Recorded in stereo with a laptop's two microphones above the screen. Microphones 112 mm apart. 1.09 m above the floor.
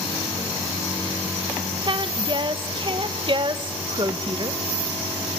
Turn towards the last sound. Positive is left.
turn(degrees=-45)  # may be behind; listen again after turning